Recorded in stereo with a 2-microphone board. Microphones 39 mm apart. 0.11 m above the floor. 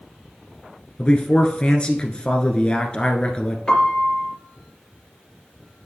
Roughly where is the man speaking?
Left.